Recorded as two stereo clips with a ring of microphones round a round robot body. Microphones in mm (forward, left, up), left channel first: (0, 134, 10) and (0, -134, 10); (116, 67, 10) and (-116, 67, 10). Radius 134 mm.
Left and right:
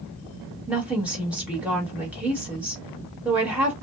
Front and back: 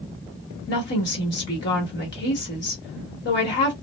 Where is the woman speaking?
5° right, 1.2 m.